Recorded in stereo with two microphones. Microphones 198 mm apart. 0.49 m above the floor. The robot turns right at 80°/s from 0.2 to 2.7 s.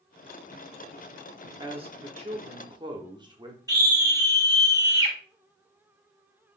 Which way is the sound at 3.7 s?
15° right (ahead or behind).